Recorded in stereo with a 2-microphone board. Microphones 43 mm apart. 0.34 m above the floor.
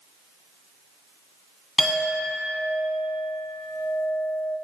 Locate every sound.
1.8 s a clink: 5° left (ahead or behind), 2 m